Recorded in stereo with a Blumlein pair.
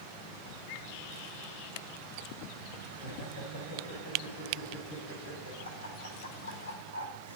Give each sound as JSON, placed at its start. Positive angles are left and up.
{"t": 2.9, "sound": "laughter", "azimuth_deg": 55, "distance_m": 8.0}